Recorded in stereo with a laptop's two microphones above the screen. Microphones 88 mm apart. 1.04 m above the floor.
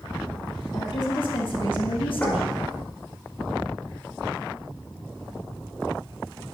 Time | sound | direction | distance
0.7 | a woman speaking | 55° left (ahead or behind) | 2 m
2.2 | knocking | 20° left (ahead or behind) | 4 m